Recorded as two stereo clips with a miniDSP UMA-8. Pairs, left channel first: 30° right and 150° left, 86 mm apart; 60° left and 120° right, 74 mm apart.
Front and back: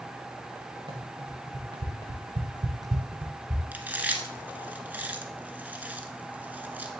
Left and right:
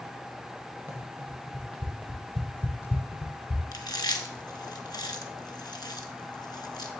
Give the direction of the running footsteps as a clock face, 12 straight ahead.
6 o'clock.